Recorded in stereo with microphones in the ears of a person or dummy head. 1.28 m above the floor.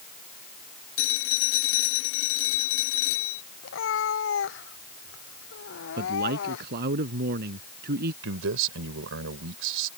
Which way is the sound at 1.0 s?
75° left (ahead or behind).